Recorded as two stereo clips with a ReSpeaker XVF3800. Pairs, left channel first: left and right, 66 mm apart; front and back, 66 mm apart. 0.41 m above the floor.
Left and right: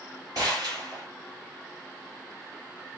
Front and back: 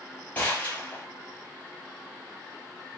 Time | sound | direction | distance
0.3 | a gunshot | 65° right | 4 m